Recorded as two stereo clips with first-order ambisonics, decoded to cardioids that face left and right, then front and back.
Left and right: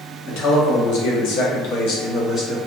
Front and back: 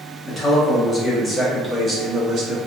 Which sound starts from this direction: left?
A man speaking, at 0.3 s.